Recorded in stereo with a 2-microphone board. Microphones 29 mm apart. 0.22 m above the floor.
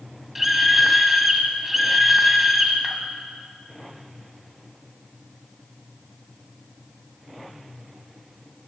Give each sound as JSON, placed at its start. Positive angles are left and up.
{"t": 0.3, "sound": "a scream", "side_deg": -10, "distance_m": 1.2}